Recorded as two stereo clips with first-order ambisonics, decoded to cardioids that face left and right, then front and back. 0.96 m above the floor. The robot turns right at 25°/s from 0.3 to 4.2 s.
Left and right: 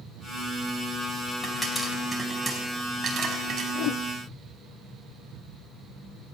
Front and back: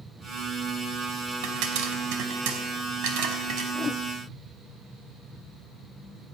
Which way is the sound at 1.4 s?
165° left.